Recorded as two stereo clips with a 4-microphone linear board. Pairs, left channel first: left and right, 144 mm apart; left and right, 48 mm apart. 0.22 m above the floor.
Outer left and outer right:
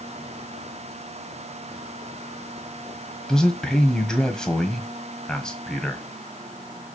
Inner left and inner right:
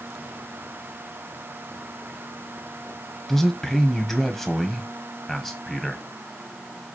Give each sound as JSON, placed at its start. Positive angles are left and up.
{"t": 3.3, "sound": "a man speaking", "side_deg": 5, "distance_m": 1.4}